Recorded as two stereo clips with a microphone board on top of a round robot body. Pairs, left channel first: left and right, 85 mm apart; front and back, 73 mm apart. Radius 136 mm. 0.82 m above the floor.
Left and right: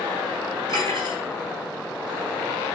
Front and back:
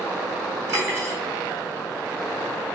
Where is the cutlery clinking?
125° right, 3 m.